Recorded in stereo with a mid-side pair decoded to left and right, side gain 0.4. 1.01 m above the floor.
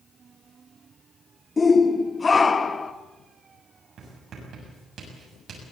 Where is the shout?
30° left, 1.7 m.